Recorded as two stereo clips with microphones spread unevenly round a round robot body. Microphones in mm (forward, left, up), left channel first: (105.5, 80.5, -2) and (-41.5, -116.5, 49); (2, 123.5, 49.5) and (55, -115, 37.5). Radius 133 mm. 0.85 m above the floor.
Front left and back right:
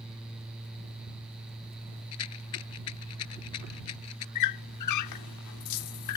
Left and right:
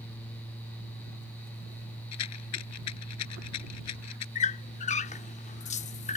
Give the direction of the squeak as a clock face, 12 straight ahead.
10 o'clock.